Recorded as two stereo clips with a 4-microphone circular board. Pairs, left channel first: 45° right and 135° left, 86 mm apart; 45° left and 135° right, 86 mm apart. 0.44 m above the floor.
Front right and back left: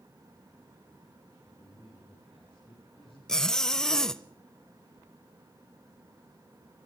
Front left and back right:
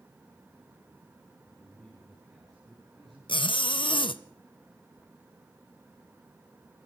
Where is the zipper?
40° left, 0.6 m.